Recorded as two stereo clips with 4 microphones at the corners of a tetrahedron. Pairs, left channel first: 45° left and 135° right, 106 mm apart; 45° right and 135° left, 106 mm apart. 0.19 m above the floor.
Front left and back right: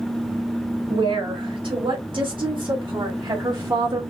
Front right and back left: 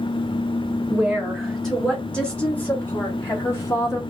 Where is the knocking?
No knocking in this recording.